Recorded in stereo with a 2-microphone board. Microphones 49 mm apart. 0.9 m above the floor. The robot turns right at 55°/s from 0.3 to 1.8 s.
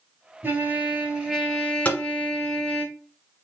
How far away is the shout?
I don't hear a shout.